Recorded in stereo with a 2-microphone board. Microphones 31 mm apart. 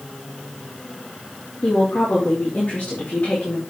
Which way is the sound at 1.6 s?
50° left (ahead or behind).